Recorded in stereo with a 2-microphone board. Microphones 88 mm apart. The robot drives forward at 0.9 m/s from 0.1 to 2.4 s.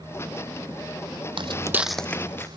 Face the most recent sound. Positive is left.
turn(degrees=25)  # may be behind; listen again after turning